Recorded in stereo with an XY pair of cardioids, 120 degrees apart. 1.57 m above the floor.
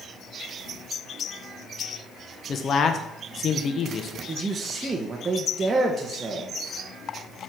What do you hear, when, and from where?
2.5 s a man speaking: 45° left, 1.2 m
4.3 s a man speaking: 25° right, 1.4 m